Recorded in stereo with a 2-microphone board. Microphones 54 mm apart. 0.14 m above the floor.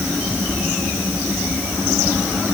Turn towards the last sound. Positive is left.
No sound to turn to.